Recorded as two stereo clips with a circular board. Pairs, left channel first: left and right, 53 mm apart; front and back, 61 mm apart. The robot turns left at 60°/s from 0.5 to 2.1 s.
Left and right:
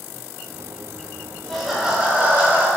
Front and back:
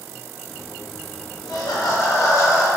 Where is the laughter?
10° left, 1.0 m; by 2.7 s 30° right, 1.0 m.